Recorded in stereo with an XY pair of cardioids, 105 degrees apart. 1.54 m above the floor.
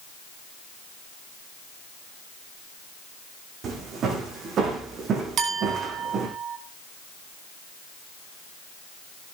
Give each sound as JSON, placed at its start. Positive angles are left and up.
{"t": 3.6, "sound": "footsteps", "azimuth_deg": -60, "distance_m": 6.5}
{"t": 5.4, "sound": "a clink", "azimuth_deg": -60, "distance_m": 5.0}